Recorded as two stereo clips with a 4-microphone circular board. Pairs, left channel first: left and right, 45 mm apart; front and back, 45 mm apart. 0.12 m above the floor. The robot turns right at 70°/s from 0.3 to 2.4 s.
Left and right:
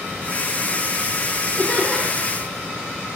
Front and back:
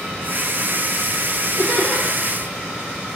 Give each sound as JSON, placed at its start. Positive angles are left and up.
{"t": 1.6, "sound": "laughter", "azimuth_deg": 130, "distance_m": 2.5}